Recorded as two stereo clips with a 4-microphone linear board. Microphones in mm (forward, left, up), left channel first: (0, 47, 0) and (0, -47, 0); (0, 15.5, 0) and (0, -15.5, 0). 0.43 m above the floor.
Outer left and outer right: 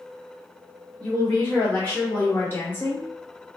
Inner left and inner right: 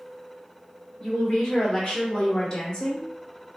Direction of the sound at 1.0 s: 20° left (ahead or behind).